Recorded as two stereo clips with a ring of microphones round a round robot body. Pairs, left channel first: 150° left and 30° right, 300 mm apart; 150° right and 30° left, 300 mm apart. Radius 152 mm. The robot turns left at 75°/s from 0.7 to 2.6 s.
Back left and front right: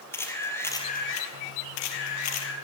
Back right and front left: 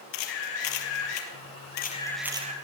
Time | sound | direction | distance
0.1 | a camera shutter | 130° right | 4 m